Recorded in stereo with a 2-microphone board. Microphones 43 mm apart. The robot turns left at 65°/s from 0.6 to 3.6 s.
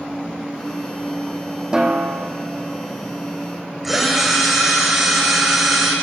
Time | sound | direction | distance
1.7 | a snare drum | 20° right | 2 m
3.8 | a drill | centre (ahead or behind) | 6.5 m